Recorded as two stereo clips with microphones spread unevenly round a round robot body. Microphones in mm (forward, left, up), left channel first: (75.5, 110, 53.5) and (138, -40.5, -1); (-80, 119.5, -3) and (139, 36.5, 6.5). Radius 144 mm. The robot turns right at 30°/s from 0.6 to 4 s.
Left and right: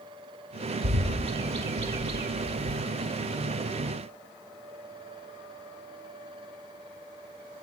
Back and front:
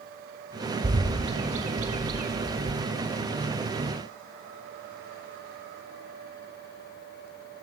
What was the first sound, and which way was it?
A bird, 80° right.